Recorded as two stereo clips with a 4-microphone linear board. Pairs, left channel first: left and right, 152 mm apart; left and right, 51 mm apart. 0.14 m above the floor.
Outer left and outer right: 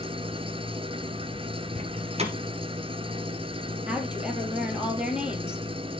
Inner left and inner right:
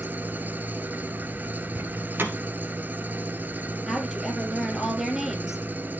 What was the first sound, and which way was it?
An engine running, 35° right (ahead or behind).